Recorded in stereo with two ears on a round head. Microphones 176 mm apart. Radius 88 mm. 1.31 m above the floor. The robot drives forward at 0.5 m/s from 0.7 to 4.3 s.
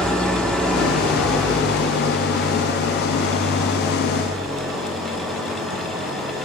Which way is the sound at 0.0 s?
5° left (ahead or behind).